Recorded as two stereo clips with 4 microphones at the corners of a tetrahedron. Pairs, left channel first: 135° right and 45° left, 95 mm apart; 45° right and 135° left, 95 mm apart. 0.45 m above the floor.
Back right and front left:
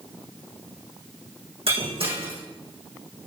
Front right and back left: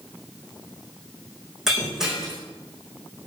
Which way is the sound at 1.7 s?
50° left.